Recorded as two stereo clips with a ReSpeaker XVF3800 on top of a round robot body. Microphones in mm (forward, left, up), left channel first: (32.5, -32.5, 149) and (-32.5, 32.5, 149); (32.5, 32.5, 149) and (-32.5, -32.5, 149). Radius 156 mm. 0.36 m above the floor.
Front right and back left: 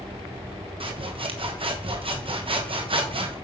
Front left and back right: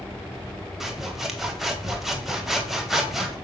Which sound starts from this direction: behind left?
Sawing, at 0.8 s.